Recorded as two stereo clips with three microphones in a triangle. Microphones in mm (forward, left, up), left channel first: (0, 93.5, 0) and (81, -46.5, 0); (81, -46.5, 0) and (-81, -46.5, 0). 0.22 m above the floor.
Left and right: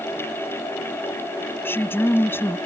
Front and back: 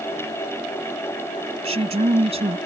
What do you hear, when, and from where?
1.6 s a woman speaking: 170° right